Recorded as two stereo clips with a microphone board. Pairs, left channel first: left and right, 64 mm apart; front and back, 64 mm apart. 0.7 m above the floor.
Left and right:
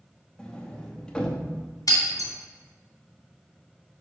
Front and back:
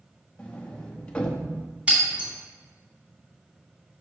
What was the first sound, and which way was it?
A sliding door, 40° left.